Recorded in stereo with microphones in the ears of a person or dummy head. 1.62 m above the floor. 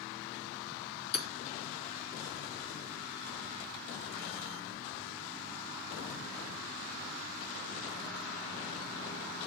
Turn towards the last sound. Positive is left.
turn(degrees=65)  # may be behind; listen again after turning